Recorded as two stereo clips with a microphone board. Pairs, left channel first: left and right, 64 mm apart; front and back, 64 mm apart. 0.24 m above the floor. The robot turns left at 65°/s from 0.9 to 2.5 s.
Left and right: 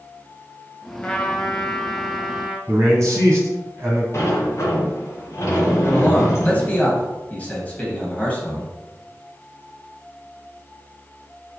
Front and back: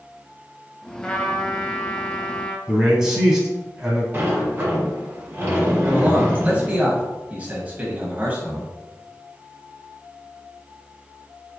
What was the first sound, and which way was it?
A trumpet, 55° left.